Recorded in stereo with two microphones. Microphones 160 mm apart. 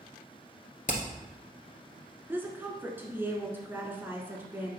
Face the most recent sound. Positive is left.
turn(degrees=-10)  # may be behind; listen again after turning